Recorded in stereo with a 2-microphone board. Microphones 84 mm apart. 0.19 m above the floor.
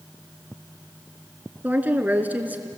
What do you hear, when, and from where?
1.6 s a woman speaking: 20° right (ahead or behind), 2.0 m